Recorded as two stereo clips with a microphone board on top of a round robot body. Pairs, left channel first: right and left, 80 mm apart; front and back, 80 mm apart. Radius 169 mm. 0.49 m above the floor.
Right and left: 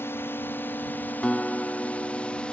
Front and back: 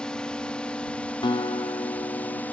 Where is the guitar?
15° right.